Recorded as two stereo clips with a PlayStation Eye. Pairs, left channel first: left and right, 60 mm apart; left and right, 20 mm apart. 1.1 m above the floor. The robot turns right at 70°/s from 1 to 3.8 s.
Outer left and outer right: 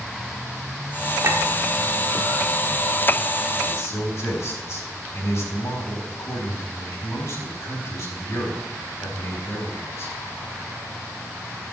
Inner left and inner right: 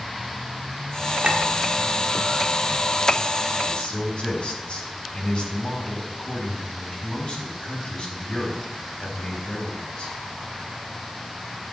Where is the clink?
60° right (ahead or behind), 1.3 m; by 1.4 s 45° right (ahead or behind), 1.3 m.